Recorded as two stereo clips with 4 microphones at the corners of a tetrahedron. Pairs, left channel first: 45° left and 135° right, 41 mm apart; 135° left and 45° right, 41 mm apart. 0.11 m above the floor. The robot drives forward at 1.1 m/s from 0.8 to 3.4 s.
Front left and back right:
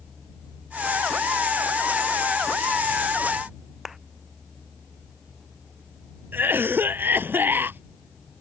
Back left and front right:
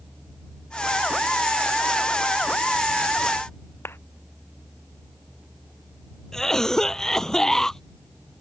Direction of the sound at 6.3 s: 150° right.